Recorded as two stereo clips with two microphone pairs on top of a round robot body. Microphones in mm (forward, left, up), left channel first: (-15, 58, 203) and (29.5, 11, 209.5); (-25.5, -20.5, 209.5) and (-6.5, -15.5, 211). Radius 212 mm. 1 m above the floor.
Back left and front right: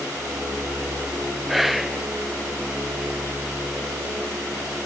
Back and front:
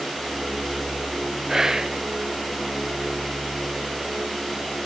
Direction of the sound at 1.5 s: 50° left.